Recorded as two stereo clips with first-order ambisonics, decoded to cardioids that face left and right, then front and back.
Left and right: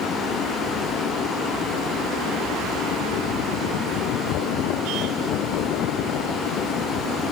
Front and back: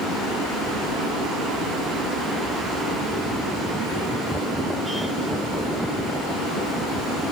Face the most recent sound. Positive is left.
turn(degrees=140)